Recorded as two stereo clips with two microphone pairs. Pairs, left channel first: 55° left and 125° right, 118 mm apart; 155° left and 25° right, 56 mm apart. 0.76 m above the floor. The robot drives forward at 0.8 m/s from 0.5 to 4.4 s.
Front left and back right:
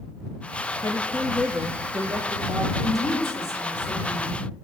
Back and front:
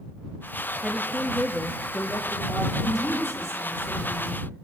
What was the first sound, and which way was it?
A woman speaking, 65° left.